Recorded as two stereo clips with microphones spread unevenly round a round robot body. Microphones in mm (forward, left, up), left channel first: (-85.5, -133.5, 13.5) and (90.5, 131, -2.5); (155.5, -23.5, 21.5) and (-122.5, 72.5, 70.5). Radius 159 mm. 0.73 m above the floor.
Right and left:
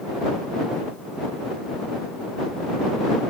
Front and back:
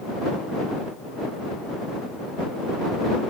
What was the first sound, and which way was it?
Only background noise.